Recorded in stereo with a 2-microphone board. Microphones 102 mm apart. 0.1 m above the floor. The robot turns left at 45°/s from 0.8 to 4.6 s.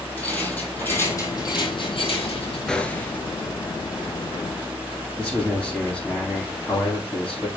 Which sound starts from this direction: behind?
A rattle, at 0.2 s.